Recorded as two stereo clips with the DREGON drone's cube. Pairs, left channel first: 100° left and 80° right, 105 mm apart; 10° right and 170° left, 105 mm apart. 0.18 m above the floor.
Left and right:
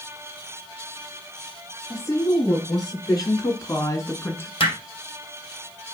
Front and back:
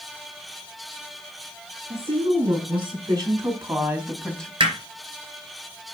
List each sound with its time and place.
1.9 s a woman speaking: 155° left, 3.5 m; by 4.5 s 55° left, 1.8 m
4.6 s hammering: 135° left, 3.5 m